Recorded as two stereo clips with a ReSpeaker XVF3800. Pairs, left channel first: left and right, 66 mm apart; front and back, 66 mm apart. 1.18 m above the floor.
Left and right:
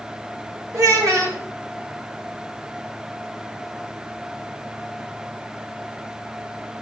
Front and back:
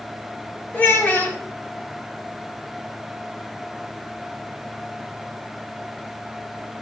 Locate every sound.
0.7 s a child speaking: 60° right, 1.9 m